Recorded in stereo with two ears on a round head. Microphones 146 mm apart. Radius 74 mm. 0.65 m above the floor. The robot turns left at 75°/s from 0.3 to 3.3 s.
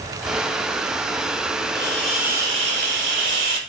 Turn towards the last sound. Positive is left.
turn(degrees=-90)